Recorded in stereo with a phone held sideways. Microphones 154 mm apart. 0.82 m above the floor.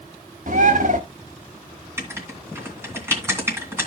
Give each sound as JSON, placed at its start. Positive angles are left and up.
{"t": 0.5, "sound": "a bird", "side_deg": -55, "distance_m": 1.2}
{"t": 2.0, "sound": "writing", "side_deg": -15, "distance_m": 2.5}